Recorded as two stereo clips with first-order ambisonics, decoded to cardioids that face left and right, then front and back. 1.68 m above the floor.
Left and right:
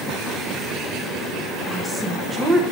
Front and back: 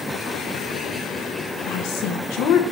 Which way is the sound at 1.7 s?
15° right.